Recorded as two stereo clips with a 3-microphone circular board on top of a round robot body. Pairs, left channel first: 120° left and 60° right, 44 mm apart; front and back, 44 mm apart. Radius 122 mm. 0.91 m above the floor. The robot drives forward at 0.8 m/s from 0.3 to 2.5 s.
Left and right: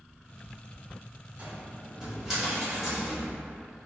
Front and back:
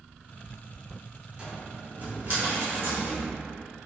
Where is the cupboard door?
115° right, 1.2 m; by 3.9 s 145° right, 1.8 m.